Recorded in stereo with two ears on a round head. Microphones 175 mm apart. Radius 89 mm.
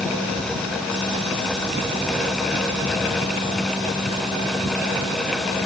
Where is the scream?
I don't hear a scream.